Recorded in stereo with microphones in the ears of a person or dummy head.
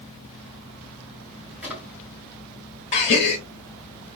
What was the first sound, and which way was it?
A drawer, centre (ahead or behind).